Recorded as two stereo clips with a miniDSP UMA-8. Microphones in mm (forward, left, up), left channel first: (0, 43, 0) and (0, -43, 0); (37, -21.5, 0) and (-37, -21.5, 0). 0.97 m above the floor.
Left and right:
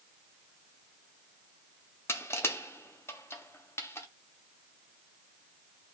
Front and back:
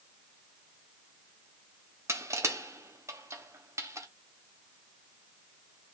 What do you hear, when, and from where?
2.1 s crushing: 140° left, 0.7 m